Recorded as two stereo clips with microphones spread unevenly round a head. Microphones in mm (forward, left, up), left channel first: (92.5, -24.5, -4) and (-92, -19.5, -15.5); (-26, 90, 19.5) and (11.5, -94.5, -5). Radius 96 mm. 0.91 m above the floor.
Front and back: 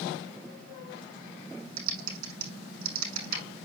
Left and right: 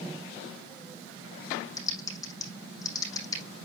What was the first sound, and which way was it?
Typing on a keyboard, 170° left.